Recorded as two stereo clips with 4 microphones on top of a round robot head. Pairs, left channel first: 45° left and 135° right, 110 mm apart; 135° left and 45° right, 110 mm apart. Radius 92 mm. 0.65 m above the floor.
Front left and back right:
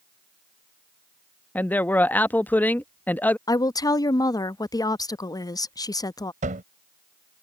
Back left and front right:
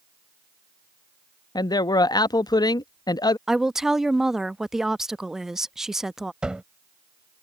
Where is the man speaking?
110° left.